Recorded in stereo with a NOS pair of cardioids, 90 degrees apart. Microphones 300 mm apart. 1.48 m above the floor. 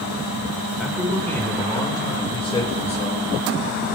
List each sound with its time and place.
0.8 s a man speaking: straight ahead, 6.5 m; by 3.2 s 25° left, 8 m